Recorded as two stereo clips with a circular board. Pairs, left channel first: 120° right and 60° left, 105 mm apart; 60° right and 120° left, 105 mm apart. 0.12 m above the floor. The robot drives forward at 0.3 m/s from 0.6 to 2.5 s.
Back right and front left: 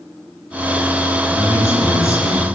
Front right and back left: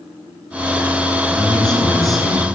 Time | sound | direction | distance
1.4 | a man speaking | 130° right | 1.2 m